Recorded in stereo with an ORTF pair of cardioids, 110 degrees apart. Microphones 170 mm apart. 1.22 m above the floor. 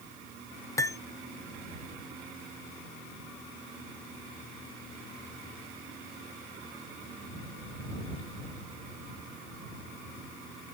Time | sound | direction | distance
0.8 | cutlery clinking | 20° left | ?